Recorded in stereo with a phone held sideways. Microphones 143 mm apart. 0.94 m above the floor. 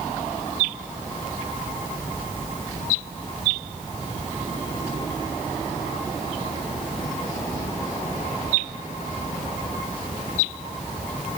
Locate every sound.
Only background noise.